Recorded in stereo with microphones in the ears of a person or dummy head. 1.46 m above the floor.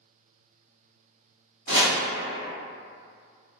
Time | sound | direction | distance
1.7 | chopping | 40° right (ahead or behind) | 1.3 m